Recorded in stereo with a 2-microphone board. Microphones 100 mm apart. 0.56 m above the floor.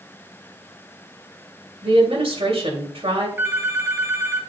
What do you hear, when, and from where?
1.8 s a woman speaking: 70° right (ahead or behind), 2.5 m
3.4 s a phone ringing: 25° right (ahead or behind), 1.5 m